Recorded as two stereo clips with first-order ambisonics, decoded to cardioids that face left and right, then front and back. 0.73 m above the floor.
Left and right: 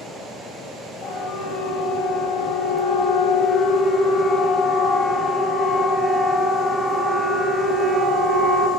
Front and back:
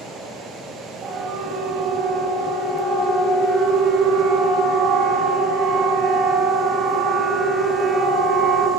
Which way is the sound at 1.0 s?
145° left.